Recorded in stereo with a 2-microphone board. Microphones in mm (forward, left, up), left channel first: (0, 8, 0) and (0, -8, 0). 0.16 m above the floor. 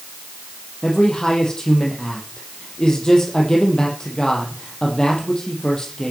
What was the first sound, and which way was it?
A man speaking, 40° left (ahead or behind).